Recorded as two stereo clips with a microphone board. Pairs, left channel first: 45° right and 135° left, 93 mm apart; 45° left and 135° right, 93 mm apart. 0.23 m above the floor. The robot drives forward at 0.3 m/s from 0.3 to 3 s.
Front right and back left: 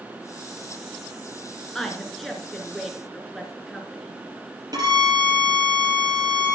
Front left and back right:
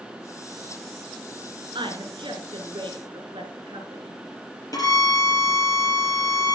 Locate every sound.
1.8 s a woman speaking: 130° right, 2 m; by 4.2 s 135° right, 2.5 m
4.7 s a violin: 90° left, 4 m